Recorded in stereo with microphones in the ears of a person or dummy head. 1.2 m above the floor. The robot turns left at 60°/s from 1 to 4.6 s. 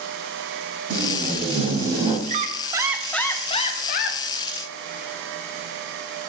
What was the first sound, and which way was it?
Tape being pulled, 100° right.